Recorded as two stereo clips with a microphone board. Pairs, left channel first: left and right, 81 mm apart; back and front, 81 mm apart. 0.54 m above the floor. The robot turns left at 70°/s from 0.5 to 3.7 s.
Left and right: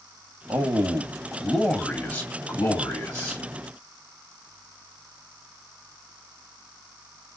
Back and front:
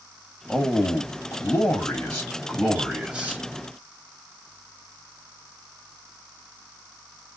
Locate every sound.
0.5 s a man speaking: 115° right, 1.2 m; by 3.4 s 40° left, 1.2 m